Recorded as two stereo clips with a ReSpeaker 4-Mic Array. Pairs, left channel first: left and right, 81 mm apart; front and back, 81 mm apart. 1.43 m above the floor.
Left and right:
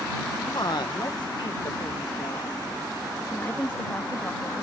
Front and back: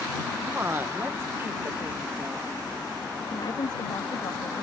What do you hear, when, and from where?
0.5 s a woman speaking: 120° left
3.2 s a woman speaking: 25° left